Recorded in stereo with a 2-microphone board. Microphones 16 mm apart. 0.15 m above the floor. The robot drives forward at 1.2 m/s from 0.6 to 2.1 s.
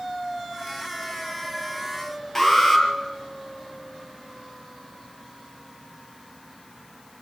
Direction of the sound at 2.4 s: 25° left (ahead or behind).